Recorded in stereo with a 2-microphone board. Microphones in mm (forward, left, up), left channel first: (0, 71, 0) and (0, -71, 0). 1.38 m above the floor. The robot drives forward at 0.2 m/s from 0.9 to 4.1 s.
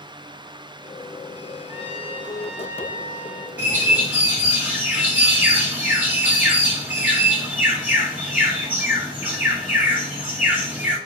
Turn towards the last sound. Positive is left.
turn(degrees=-10)  # may be behind; listen again after turning